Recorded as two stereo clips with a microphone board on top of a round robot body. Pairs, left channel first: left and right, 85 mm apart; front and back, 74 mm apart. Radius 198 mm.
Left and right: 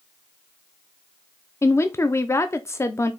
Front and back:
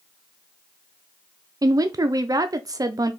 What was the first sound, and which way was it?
A woman speaking, 145° left.